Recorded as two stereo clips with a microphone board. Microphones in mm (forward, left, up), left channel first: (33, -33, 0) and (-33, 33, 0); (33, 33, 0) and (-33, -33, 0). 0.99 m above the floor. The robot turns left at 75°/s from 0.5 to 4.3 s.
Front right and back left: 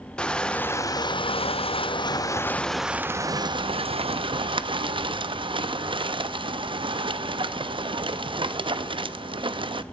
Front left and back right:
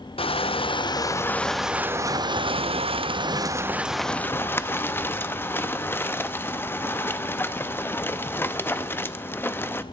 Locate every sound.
0.2 s crushing: 35° left, 0.5 m; by 9.8 s 110° left, 0.5 m